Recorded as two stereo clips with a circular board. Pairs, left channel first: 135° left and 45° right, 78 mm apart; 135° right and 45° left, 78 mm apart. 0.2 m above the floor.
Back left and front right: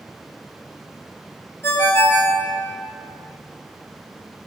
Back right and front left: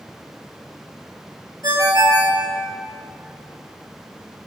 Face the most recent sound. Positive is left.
turn(degrees=80)